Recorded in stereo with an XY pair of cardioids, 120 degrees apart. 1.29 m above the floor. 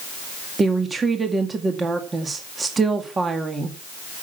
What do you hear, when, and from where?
0.6 s a woman speaking: 25° right, 1.9 m